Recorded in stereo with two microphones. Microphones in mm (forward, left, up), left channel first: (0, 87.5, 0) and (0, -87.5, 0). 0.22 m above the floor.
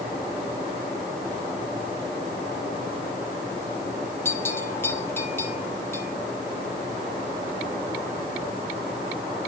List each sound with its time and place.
4.2 s a bell: 15° left (ahead or behind), 2.5 m